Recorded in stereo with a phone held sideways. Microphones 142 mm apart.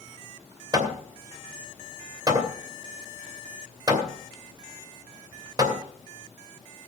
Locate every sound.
0.7 s hammering: 30° right (ahead or behind), 2.5 m